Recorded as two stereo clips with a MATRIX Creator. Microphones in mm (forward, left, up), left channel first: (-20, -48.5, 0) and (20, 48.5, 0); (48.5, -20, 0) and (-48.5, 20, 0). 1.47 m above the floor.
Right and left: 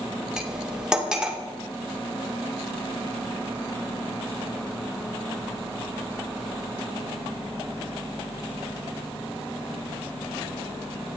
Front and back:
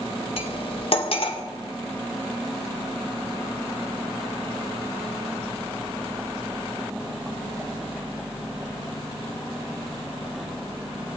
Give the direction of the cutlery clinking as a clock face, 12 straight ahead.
12 o'clock.